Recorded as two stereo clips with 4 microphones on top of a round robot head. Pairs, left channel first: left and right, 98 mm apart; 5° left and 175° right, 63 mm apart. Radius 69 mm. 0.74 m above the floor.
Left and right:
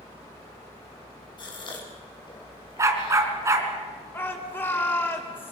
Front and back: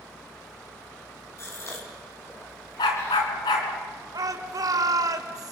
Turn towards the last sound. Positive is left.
turn(degrees=160)